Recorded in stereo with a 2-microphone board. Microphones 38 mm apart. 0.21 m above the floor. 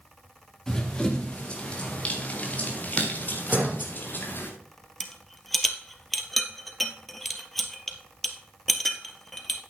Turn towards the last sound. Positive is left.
turn(degrees=0)  # may be behind; listen again after turning